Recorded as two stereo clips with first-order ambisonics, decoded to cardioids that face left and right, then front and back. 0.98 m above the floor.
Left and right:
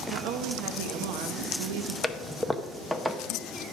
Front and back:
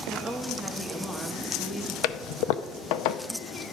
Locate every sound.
0.1 s a woman speaking: 85° right, 0.9 m
2.0 s a toilet flushing: 5° right, 0.6 m